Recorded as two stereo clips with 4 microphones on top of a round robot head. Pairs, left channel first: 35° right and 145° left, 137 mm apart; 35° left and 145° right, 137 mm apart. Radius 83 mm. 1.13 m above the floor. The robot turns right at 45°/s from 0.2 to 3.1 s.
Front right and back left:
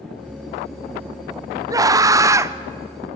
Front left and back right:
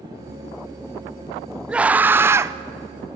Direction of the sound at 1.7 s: 140° left.